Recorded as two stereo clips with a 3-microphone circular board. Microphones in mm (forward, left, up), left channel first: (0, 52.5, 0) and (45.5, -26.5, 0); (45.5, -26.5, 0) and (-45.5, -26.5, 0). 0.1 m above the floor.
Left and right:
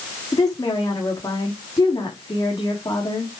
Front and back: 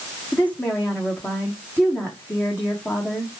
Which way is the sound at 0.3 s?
70° left.